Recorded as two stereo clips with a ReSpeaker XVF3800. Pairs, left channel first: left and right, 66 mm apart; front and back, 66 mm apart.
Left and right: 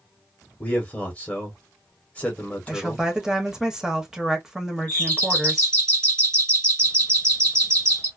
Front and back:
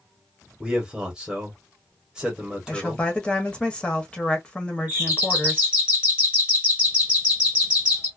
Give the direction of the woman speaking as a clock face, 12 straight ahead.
1 o'clock.